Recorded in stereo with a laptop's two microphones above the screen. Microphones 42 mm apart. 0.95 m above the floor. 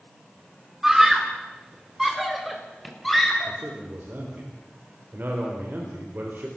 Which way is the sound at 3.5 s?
55° right (ahead or behind).